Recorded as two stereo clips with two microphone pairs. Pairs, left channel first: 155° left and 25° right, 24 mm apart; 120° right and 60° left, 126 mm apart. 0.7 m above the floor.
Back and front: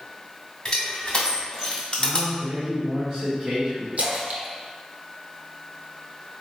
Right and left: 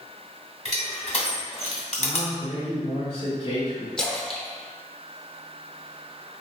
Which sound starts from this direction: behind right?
Crushing, at 0.7 s.